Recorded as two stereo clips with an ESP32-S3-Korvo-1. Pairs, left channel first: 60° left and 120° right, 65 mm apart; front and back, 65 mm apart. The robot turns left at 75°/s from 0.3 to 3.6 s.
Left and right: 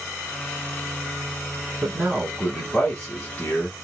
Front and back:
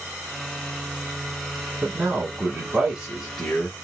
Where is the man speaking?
155° right, 1.2 m; by 3.8 s 70° left, 1.2 m.